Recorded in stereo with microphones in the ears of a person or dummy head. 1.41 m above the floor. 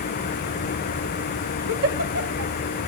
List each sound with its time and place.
1.7 s a giggle: 65° right (ahead or behind), 0.6 m